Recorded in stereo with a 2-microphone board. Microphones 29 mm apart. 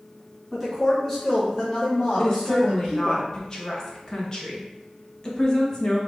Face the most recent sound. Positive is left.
turn(degrees=25)  # may be behind; listen again after turning